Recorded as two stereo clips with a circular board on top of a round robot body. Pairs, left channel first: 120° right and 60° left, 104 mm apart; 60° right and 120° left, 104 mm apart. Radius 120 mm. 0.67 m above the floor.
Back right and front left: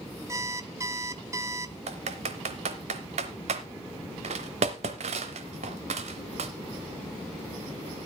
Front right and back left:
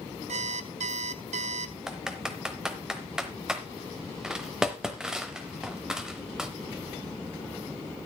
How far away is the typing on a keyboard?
About 0.7 m.